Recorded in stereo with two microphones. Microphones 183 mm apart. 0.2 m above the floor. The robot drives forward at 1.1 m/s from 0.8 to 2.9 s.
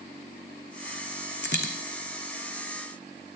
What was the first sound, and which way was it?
A dropped coin, 80° left.